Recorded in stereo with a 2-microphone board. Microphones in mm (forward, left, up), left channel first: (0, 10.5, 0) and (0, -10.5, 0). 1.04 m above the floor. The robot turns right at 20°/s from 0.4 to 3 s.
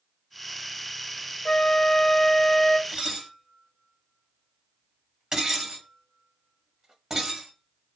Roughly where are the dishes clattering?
Right.